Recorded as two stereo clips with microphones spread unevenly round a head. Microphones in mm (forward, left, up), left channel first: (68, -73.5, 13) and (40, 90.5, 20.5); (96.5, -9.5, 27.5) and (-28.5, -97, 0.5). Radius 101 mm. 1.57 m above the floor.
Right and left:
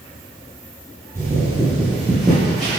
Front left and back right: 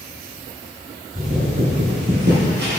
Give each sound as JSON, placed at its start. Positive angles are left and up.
{"t": 1.1, "sound": "footsteps", "azimuth_deg": 170, "distance_m": 2.5}